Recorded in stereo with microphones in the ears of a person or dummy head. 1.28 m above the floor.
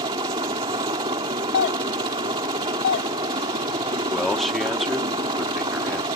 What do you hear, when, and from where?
0.0 s a helicopter: 20° right (ahead or behind)
1.5 s a doorbell: 55° left (ahead or behind)
4.1 s a man speaking: centre (ahead or behind)